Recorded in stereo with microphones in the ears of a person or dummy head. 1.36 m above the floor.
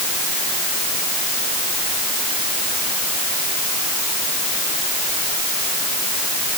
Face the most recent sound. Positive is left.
No sound to turn to.